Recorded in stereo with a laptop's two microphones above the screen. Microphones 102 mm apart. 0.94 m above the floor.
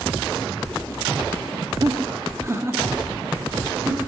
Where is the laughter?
40° right (ahead or behind), 1.6 m; by 4.1 s 15° right (ahead or behind), 3.5 m.